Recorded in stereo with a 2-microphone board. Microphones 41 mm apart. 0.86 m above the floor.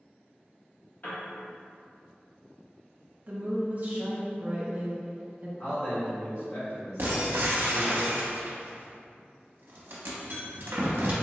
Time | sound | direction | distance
1.0 | a piano | 50° left (ahead or behind) | 0.9 m
3.3 | a woman speaking | 40° right (ahead or behind) | 0.7 m
5.6 | a man speaking | 60° left (ahead or behind) | 1.5 m
7.0 | breaking glass | 65° right (ahead or behind) | 0.6 m